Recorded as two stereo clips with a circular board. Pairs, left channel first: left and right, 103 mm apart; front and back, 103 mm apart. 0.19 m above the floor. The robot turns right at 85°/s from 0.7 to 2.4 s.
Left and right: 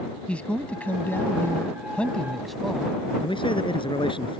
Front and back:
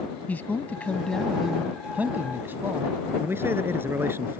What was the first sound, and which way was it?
A man speaking, 35° left.